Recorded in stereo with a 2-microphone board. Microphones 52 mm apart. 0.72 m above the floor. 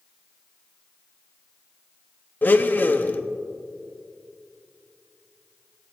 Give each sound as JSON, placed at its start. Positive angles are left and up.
{"t": 2.4, "sound": "a blender", "side_deg": 35, "distance_m": 0.7}